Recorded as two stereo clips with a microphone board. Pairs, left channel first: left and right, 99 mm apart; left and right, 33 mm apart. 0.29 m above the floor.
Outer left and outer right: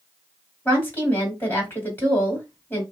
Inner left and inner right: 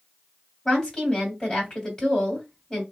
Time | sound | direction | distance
0.7 | a woman speaking | 20° left (ahead or behind) | 2.0 m